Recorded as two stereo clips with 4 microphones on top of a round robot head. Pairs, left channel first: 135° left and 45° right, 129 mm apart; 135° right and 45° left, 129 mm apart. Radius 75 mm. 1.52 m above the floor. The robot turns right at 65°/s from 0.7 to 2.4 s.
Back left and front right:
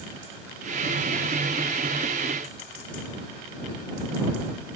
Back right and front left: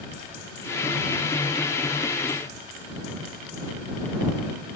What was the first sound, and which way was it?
Only background noise.